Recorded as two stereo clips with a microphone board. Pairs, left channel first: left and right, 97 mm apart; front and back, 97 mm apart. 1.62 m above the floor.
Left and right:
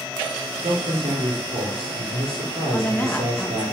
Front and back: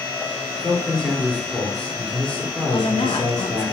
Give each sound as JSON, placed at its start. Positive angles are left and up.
{"t": 0.6, "sound": "a man speaking", "azimuth_deg": -85, "distance_m": 5.5}
{"t": 2.7, "sound": "a woman speaking", "azimuth_deg": 20, "distance_m": 2.0}